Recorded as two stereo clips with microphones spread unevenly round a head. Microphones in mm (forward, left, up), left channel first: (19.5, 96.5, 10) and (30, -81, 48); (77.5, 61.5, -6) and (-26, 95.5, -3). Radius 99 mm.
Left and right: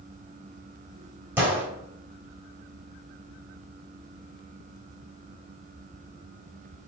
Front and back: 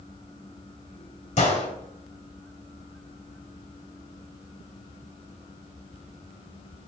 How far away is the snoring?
No snoring in this recording.